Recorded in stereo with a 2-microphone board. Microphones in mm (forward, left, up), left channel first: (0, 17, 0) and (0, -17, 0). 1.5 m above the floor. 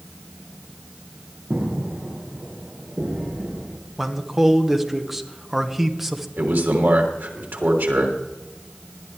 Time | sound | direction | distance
1.5 | footsteps | 30° right (ahead or behind) | 5.5 m
4.0 | a man speaking | 10° right (ahead or behind) | 1.1 m
6.4 | a man speaking | 75° right (ahead or behind) | 3 m